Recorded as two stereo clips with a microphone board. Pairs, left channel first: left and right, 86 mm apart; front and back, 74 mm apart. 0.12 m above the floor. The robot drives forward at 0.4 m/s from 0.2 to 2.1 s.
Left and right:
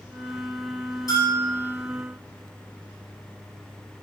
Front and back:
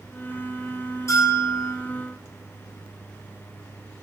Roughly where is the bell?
Ahead left.